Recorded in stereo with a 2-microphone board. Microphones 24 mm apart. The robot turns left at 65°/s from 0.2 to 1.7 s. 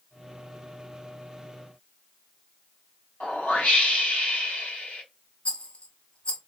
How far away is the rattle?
About 1.3 m.